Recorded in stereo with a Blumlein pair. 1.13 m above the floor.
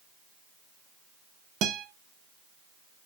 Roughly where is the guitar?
Ahead right.